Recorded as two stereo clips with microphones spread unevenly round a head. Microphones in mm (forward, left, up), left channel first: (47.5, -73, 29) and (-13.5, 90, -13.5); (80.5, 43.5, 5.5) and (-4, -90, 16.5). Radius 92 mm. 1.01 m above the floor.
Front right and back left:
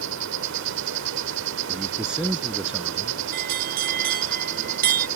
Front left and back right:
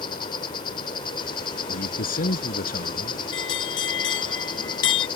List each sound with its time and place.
0.0 s an insect: 125° left
1.7 s a man speaking: 25° left
3.3 s a bell: 70° left